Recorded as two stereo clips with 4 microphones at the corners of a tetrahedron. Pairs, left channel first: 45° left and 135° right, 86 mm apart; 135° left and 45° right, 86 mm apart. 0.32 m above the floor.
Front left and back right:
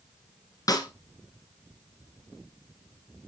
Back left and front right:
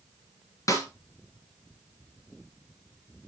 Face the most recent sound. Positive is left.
turn(degrees=85)